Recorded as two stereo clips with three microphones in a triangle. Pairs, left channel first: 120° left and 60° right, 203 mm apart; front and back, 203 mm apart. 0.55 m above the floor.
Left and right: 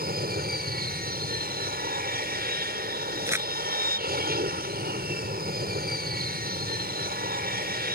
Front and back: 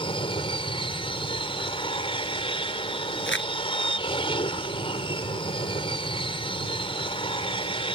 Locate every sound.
0.0 s an aircraft: 55° right
3.3 s crumpling: 20° left